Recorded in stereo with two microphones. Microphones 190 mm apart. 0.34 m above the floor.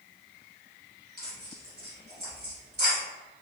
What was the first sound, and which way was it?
Tearing paper, 60° right (ahead or behind).